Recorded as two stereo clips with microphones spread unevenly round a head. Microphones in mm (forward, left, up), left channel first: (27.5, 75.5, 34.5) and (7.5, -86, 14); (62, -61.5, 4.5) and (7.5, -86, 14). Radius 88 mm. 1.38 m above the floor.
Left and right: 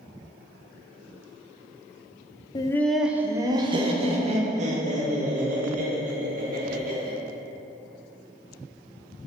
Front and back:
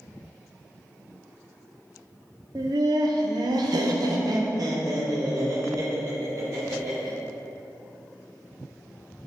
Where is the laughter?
150° left, 0.5 m; by 7.1 s 135° right, 3 m.